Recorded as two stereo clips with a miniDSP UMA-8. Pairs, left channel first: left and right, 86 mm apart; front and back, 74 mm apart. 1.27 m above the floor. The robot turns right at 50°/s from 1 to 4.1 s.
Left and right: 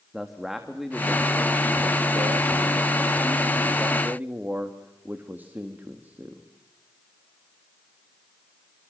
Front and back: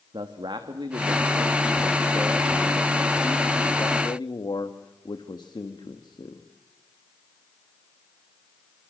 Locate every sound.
0.1 s a man speaking: straight behind, 1.8 m; by 6.5 s 25° right, 1.8 m